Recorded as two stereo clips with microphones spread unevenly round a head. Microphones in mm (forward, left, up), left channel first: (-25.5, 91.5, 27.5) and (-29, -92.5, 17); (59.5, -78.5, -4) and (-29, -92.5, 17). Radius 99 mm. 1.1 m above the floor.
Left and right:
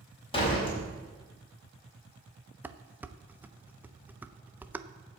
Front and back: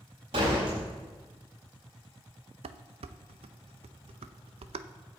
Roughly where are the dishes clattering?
Behind.